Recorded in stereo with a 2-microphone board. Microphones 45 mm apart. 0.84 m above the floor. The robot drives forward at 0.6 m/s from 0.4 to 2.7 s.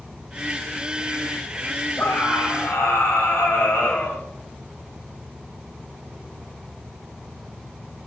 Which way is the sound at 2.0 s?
60° left (ahead or behind).